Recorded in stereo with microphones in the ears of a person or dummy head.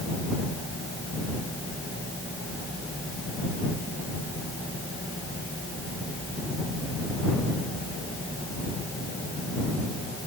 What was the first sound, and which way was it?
Only background noise.